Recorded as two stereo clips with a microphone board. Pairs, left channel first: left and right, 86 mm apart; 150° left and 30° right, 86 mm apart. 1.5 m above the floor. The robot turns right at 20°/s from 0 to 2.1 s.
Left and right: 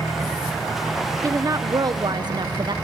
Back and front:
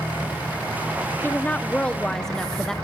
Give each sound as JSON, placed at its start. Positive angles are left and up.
{"t": 1.2, "sound": "a woman speaking", "azimuth_deg": -145, "distance_m": 1.0}